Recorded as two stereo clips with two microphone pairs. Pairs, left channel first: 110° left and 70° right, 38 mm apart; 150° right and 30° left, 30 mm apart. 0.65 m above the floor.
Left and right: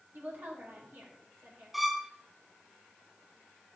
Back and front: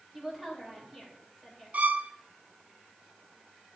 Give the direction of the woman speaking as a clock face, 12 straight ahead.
2 o'clock.